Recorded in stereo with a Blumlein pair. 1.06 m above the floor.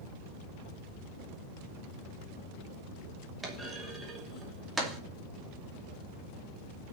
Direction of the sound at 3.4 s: 10° right.